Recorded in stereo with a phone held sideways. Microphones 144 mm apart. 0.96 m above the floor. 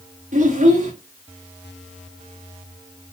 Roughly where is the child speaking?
Right.